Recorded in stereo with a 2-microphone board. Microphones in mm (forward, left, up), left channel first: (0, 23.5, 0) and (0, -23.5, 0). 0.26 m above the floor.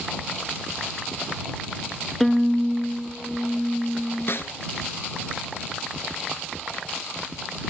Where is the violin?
5° left (ahead or behind).